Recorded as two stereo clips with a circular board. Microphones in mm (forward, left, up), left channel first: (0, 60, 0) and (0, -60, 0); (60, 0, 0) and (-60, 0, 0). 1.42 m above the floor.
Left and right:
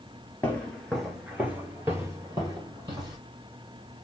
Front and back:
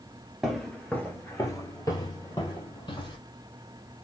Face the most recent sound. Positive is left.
turn(degrees=-40)